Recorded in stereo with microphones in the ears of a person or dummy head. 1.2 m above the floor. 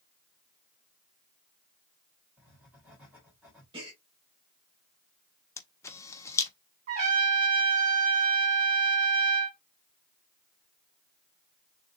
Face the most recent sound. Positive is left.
turn(degrees=-45)  # may be behind; listen again after turning